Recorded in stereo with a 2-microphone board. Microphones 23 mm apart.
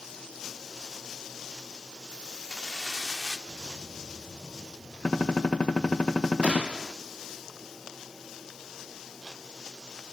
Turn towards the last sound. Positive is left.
turn(degrees=-65)  # may be behind; listen again after turning